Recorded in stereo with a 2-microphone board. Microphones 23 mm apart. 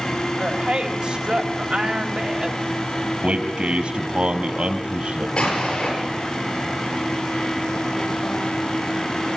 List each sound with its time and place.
0.4 s a woman speaking: 60° right (ahead or behind), 1.9 m
3.2 s a man speaking: 65° right (ahead or behind), 3 m
5.4 s an explosion: 50° left (ahead or behind), 8.5 m